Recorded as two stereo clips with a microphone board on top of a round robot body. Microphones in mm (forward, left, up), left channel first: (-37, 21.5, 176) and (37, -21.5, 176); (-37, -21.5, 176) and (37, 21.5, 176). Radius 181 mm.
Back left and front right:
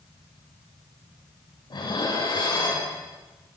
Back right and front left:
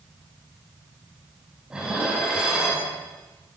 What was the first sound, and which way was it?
Dishes clattering, 110° left.